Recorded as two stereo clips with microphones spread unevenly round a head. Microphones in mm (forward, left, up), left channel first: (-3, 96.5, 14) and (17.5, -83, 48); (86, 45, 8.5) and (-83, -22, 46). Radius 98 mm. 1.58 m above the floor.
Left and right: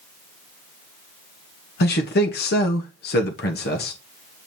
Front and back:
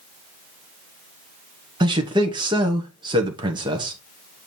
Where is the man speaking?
135° left, 1.1 m.